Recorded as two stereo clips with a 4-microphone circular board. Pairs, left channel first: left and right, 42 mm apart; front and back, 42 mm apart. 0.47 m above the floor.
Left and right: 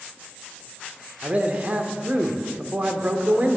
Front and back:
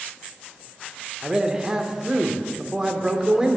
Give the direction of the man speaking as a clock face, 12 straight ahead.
4 o'clock.